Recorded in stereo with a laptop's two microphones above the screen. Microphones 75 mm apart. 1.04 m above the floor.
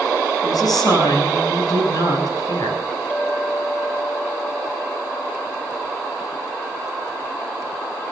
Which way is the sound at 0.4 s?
60° left (ahead or behind).